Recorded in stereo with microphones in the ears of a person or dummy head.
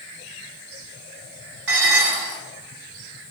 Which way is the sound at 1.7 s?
75° right (ahead or behind).